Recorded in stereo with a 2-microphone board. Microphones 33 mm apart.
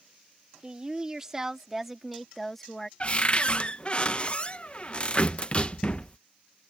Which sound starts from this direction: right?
A woman speaking, at 0.6 s.